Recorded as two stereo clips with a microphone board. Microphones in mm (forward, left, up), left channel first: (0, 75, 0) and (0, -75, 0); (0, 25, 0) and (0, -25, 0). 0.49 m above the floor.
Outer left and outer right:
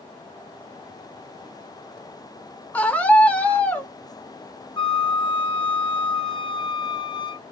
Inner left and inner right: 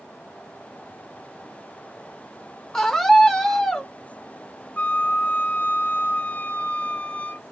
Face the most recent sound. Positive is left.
turn(degrees=35)  # may be behind; listen again after turning